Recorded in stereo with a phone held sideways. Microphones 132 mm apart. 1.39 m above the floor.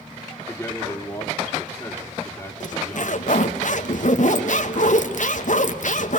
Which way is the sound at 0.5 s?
15° left (ahead or behind).